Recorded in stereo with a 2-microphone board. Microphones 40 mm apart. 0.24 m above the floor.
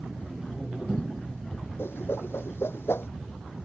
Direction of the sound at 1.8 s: 75° left (ahead or behind).